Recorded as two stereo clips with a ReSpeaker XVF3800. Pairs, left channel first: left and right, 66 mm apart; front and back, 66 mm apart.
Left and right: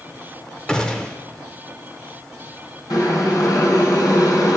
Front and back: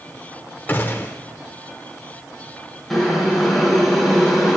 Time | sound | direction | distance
0.7 | a gunshot | 25° left | 0.8 m
2.9 | boiling | 90° left | 2.5 m